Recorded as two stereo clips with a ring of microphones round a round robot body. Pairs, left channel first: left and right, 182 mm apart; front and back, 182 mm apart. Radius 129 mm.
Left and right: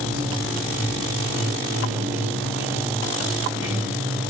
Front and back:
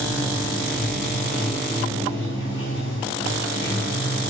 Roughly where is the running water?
Ahead.